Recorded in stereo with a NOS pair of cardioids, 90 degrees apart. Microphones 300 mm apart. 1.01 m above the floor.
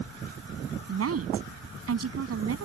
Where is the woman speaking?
50° right.